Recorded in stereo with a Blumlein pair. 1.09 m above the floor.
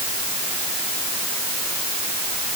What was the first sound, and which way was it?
Only background noise.